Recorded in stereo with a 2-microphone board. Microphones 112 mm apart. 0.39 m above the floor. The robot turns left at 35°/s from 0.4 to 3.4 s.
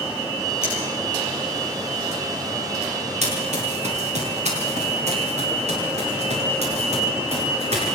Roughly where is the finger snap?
Left.